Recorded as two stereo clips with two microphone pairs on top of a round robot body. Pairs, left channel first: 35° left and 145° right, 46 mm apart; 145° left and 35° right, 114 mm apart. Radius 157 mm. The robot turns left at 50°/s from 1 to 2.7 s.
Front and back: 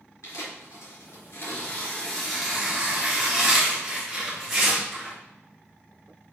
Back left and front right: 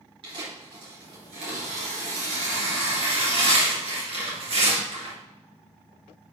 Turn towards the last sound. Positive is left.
turn(degrees=-75)